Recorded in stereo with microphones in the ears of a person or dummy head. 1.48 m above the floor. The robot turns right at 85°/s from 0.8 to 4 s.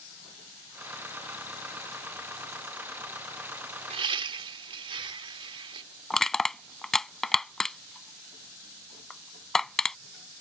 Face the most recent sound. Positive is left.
turn(degrees=0)  # may be behind; listen again after turning